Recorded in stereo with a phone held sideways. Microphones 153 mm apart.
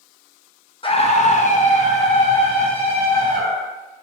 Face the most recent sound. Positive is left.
turn(degrees=30)  # may be behind; listen again after turning